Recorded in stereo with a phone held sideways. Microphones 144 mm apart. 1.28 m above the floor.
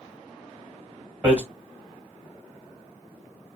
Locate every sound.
1.2 s hammering: 10° right (ahead or behind), 1.4 m